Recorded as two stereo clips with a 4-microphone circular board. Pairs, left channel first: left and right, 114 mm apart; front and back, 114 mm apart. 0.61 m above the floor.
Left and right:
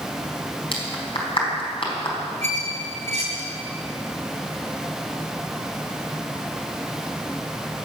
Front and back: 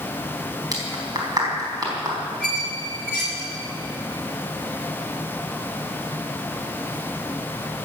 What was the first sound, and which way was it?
A clap, 125° left.